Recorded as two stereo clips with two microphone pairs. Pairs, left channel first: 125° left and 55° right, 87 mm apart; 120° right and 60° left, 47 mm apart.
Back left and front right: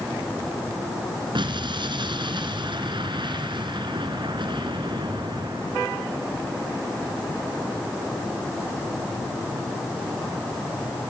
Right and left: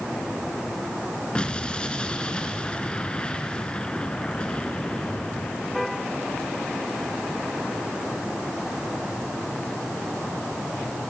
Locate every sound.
1.4 s an explosion: 50° right, 2.5 m